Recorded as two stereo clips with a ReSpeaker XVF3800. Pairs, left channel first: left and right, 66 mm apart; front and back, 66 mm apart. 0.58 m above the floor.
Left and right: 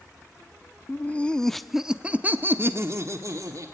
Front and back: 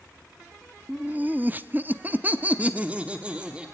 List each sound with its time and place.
0.9 s laughter: 130° left, 0.8 m; by 3.7 s 110° right, 1.3 m